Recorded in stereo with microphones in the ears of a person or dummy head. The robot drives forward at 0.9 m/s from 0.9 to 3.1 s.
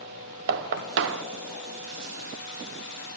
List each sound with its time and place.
0.5 s knocking: 65° right (ahead or behind), 0.8 m; by 1.2 s 75° right (ahead or behind), 0.7 m